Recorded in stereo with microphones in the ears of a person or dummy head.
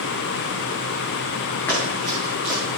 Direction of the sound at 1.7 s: 15° left (ahead or behind).